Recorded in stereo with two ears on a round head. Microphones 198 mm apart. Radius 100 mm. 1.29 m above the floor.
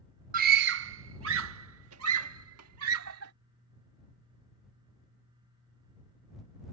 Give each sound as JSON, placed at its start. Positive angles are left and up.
{"t": 0.3, "sound": "a scream", "side_deg": -40}